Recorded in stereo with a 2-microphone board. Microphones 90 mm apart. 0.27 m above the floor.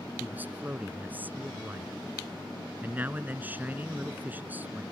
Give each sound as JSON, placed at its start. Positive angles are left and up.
{"t": 0.2, "sound": "a man speaking", "side_deg": -20}